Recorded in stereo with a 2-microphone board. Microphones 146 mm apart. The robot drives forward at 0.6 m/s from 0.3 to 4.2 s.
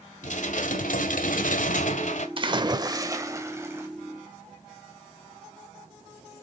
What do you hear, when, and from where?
0.2 s dishes clattering: 65° left (ahead or behind), 1.4 m; by 2.3 s 60° left (ahead or behind), 1.4 m
2.4 s a splash: 40° right (ahead or behind), 0.8 m; by 3.9 s 20° right (ahead or behind), 1.6 m